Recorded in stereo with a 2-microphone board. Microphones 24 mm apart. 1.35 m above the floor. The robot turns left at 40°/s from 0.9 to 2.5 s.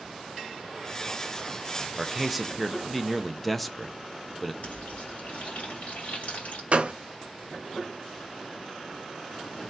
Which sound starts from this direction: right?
A gunshot, at 6.7 s.